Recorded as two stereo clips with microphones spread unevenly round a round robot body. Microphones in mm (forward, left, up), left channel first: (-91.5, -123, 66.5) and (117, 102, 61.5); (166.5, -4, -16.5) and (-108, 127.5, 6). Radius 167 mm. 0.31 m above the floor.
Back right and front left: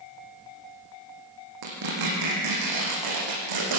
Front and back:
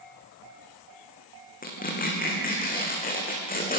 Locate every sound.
1.6 s tearing paper: 35° left, 6 m